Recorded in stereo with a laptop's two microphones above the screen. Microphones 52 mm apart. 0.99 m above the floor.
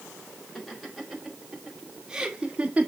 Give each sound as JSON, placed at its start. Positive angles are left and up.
{"t": 0.6, "sound": "laughter", "side_deg": 0, "distance_m": 4.0}